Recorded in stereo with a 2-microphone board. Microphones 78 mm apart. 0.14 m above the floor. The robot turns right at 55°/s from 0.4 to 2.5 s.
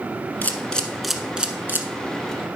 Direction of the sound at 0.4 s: 25° left (ahead or behind).